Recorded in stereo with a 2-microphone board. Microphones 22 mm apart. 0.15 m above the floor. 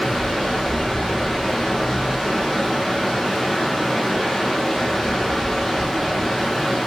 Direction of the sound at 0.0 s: 10° left (ahead or behind).